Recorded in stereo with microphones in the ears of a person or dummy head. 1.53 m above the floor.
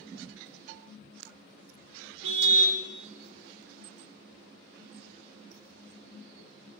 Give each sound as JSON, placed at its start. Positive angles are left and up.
{"t": 2.2, "sound": "a car horn", "side_deg": -75, "distance_m": 3.0}